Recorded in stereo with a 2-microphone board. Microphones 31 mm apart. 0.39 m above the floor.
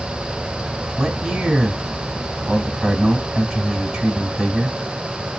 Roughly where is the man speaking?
Centre.